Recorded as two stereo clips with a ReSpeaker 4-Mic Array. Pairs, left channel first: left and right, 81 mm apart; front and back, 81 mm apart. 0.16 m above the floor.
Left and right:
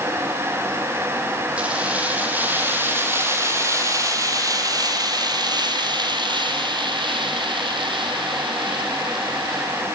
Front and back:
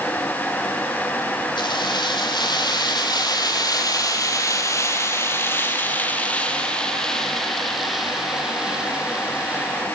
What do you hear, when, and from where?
1.6 s keys jangling: 15° right, 5 m; by 9.8 s 105° right, 5.5 m